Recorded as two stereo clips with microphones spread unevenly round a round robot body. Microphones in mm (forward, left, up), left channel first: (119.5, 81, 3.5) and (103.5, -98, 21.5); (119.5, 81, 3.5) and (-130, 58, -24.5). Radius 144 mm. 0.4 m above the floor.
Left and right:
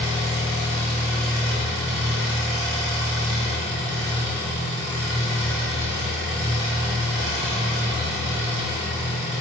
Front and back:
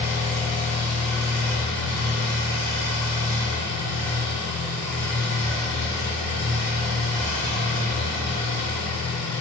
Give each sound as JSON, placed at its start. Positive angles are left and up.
{"t": 0.0, "sound": "an engine running", "azimuth_deg": -90, "distance_m": 1.3}